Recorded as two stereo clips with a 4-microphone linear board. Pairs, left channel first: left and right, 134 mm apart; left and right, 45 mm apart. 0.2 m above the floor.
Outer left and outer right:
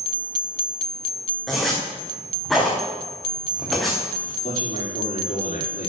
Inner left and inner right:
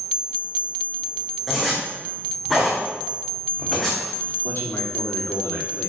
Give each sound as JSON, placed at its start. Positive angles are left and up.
{"t": 1.5, "sound": "a zipper", "side_deg": 0, "distance_m": 4.0}
{"t": 4.4, "sound": "a man speaking", "side_deg": 80, "distance_m": 6.0}